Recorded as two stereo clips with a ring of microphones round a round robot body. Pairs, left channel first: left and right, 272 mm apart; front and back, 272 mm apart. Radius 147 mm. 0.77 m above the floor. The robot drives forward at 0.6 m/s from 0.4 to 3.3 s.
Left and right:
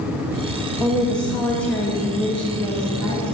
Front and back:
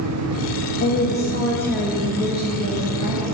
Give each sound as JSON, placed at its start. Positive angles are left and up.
{"t": 0.8, "sound": "a woman speaking", "azimuth_deg": 5, "distance_m": 1.1}